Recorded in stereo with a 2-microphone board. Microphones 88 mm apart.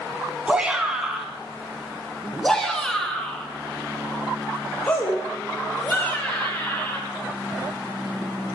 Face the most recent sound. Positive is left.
turn(degrees=20)  # may be behind; listen again after turning